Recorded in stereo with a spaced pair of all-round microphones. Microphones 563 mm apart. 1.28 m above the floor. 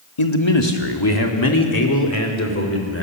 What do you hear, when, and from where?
0.2 s a man speaking: 60° left (ahead or behind), 1.9 m; by 3.0 s 25° left (ahead or behind), 4 m